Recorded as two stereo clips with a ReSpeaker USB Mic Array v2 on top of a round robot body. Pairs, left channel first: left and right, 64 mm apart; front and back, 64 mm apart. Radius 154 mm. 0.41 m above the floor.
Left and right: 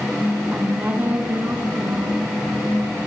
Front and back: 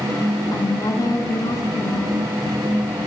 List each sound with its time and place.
0.5 s a woman speaking: 25° right, 7.5 m